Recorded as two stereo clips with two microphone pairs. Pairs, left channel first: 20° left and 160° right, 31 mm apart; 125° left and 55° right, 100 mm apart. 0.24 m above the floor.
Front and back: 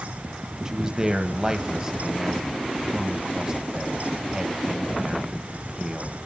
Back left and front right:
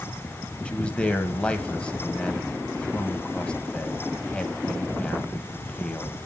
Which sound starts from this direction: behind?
A man speaking, at 0.7 s.